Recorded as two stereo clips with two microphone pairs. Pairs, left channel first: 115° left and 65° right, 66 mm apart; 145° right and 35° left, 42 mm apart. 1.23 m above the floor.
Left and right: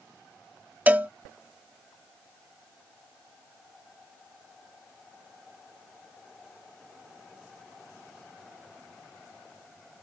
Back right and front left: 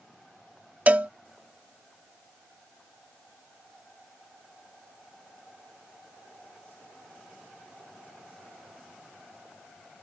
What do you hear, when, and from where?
0.9 s a cowbell: 5° right